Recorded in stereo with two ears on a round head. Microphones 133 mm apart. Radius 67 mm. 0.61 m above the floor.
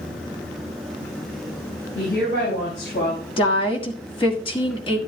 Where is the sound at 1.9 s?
75° left (ahead or behind), 5.5 m.